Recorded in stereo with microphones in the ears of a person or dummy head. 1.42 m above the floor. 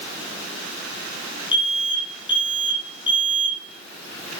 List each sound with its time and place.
1.5 s an alarm: 30° left (ahead or behind), 2.5 m